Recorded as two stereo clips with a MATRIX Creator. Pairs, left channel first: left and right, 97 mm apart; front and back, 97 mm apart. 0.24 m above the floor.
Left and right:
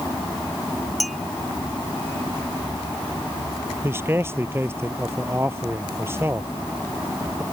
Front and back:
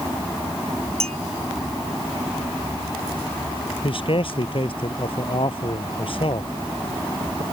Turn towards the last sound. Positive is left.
turn(degrees=-25)